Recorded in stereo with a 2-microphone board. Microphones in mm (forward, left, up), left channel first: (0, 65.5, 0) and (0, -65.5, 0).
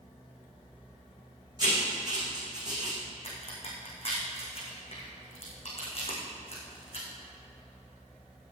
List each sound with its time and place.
1.6 s writing: 30° right (ahead or behind), 4 m
3.2 s a crack: 50° left (ahead or behind), 4.5 m